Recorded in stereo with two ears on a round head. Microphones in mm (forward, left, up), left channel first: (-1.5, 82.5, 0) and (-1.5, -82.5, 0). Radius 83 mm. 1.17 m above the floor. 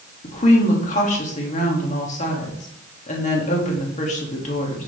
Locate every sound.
0.2 s a woman speaking: 40° left (ahead or behind), 2.5 m